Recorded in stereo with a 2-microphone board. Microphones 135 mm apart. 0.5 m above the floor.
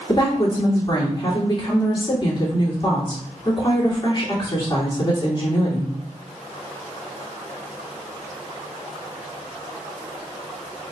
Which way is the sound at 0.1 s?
35° left (ahead or behind).